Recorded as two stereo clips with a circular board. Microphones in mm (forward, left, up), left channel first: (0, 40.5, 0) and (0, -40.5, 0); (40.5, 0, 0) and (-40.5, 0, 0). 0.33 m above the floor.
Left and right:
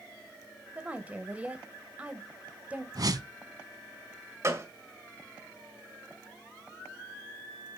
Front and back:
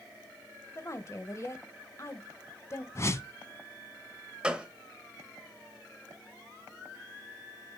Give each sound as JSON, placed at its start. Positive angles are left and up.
{"t": 0.8, "sound": "a woman speaking", "azimuth_deg": -25, "distance_m": 1.4}
{"t": 3.0, "sound": "a whoosh", "azimuth_deg": -55, "distance_m": 0.8}
{"t": 4.4, "sound": "a gunshot", "azimuth_deg": -110, "distance_m": 1.7}